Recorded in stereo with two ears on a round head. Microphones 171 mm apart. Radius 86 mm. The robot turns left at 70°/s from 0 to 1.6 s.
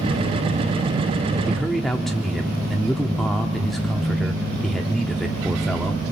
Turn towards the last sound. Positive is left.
turn(degrees=0)  # may be behind; listen again after turning